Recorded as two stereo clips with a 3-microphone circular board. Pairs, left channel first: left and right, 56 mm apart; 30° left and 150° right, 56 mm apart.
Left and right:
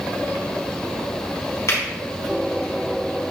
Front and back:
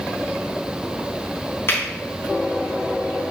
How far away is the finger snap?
About 3.5 m.